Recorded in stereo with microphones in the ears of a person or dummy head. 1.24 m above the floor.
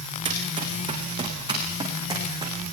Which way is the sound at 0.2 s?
30° right (ahead or behind).